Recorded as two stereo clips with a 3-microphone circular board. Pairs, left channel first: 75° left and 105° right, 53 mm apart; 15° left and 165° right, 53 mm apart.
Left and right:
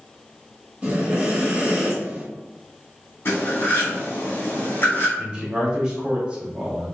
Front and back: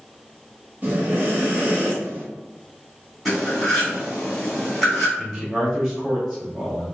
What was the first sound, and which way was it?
Breathing, 145° right.